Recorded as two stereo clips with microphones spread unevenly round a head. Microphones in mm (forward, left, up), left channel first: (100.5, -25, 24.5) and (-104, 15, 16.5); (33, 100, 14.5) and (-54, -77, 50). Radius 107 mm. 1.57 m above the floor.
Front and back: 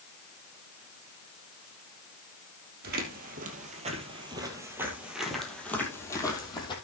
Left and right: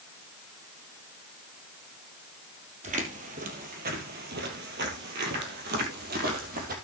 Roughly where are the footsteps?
Behind right.